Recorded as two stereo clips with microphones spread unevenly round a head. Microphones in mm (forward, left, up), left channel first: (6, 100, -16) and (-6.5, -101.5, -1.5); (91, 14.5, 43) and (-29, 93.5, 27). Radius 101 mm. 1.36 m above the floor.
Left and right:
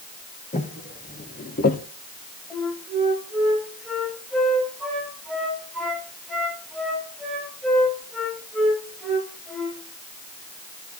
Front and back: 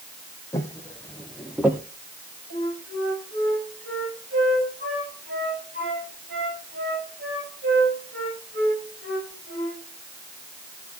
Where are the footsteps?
30° left, 3 m; by 1.8 s 75° left, 1.6 m.